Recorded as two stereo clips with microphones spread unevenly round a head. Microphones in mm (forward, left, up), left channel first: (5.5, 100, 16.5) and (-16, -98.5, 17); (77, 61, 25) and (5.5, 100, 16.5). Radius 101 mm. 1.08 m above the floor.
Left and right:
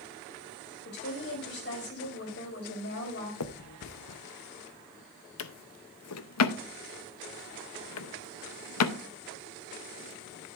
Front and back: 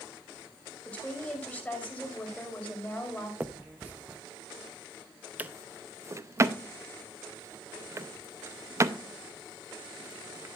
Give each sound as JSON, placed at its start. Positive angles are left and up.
{"t": 0.8, "sound": "a woman speaking", "azimuth_deg": 45, "distance_m": 5.0}
{"t": 3.4, "sound": "a finger snap", "azimuth_deg": 80, "distance_m": 0.7}
{"t": 5.4, "sound": "a drawer", "azimuth_deg": 95, "distance_m": 0.7}